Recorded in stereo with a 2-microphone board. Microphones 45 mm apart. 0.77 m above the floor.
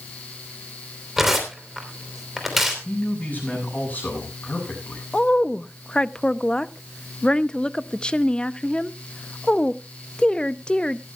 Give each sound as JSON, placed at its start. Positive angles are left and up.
{"t": 1.2, "sound": "tearing paper", "side_deg": -10, "distance_m": 3.0}
{"t": 2.9, "sound": "a man speaking", "side_deg": 40, "distance_m": 7.0}
{"t": 5.1, "sound": "a woman speaking", "side_deg": 25, "distance_m": 0.5}